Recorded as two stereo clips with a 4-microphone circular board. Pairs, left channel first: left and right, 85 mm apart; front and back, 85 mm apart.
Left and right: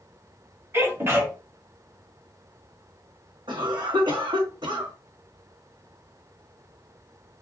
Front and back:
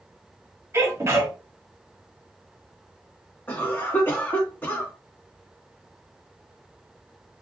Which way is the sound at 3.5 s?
65° right.